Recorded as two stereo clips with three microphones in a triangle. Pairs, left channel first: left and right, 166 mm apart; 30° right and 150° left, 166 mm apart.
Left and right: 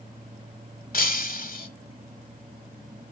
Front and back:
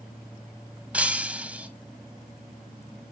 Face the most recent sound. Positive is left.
turn(degrees=70)